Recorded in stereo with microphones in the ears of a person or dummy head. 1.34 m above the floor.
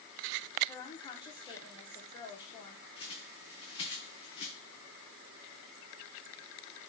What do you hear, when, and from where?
0.7 s a woman speaking: 25° left (ahead or behind), 0.5 m
3.0 s a bird: 30° left (ahead or behind), 0.6 m